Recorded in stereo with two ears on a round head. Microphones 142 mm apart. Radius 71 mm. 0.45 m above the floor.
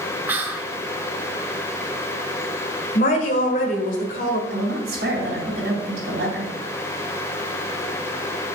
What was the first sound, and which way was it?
Whispering, 10° right (ahead or behind).